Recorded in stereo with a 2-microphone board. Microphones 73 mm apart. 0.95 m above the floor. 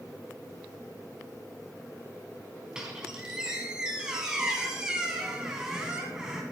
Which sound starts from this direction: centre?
A squeak, at 2.8 s.